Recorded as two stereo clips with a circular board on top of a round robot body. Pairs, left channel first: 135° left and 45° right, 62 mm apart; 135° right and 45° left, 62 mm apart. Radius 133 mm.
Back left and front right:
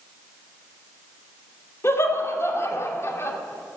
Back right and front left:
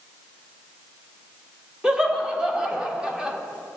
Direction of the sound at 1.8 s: 115° left.